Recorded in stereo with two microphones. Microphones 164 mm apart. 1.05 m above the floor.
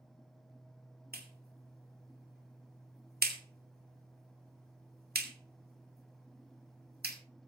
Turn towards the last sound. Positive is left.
turn(degrees=-70)  # may be behind; listen again after turning